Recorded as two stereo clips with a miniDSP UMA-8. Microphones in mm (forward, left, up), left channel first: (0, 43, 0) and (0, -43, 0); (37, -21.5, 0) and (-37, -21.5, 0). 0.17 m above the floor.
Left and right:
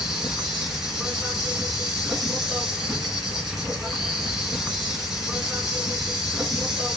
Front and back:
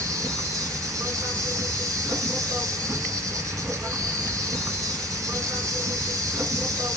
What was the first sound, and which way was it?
An insect, 175° right.